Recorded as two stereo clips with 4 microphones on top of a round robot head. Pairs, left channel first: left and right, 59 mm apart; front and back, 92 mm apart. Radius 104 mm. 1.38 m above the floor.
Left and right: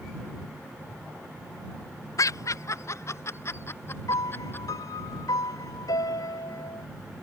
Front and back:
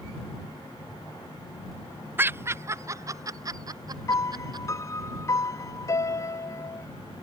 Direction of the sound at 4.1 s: 55° left.